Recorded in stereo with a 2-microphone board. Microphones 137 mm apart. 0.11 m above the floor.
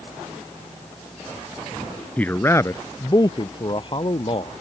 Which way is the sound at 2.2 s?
10° left (ahead or behind).